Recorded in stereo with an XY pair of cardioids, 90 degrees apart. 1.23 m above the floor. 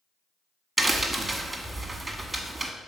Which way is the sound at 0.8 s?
15° right.